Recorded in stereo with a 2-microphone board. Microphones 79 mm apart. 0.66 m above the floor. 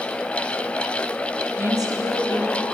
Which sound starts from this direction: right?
A woman speaking, at 1.6 s.